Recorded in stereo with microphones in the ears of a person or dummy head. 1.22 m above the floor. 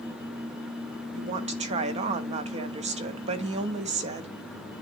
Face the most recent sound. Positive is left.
turn(degrees=-35)  # may be behind; listen again after turning